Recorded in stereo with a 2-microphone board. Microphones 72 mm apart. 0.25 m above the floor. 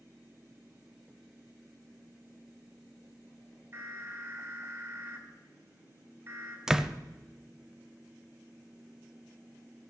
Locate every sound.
3.7 s an alarm: 40° right (ahead or behind), 2.5 m
6.7 s a door slam: 10° right (ahead or behind), 0.6 m